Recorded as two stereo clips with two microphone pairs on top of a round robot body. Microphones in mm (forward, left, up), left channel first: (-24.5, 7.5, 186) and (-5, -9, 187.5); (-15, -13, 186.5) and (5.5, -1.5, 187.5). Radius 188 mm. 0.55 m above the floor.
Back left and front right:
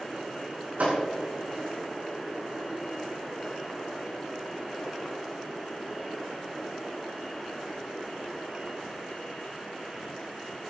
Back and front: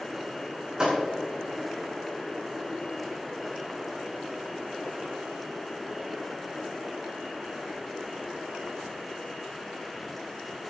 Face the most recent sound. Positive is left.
turn(degrees=-25)